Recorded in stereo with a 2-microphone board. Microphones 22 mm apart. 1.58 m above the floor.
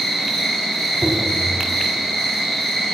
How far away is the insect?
About 3 m.